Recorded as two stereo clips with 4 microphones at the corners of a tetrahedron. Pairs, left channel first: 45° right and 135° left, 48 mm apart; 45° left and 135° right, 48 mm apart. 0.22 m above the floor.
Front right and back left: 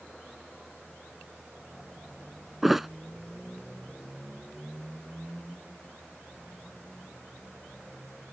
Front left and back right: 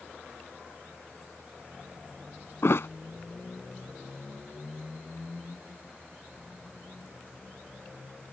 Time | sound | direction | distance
2.6 | a thud | 50° left | ?